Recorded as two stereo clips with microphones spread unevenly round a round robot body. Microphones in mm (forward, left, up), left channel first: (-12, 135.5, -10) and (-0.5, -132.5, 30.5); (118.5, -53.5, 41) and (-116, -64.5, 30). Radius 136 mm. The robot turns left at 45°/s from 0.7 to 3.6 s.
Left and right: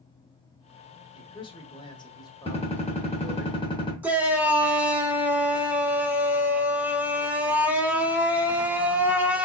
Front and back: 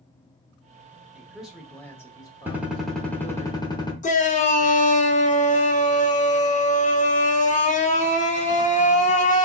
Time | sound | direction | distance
1.1 | a man speaking | 115° left | 0.9 m
2.5 | a gunshot | 115° left | 1.1 m
4.0 | a shout | 5° left | 0.8 m